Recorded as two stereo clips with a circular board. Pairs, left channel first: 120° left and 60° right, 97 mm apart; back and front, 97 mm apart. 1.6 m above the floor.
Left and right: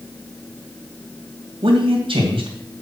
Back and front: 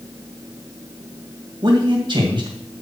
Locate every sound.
1.6 s a man speaking: 35° right, 2.5 m